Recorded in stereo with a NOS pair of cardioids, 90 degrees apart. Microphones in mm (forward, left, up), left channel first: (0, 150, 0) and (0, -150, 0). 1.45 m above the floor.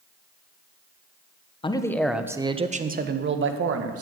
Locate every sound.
1.6 s a man speaking: 15° left, 1.1 m; by 4.0 s 50° right, 1.8 m